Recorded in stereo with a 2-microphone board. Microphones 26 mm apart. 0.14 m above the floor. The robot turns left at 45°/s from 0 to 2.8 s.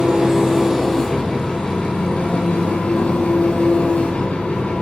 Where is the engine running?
145° right, 4 m; by 4.8 s 90° left, 4 m.